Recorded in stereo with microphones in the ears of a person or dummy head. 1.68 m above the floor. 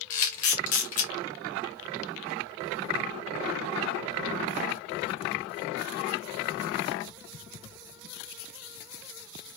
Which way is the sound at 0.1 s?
40° left (ahead or behind).